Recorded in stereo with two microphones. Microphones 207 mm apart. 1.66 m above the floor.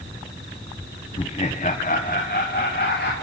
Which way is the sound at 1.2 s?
25° left (ahead or behind).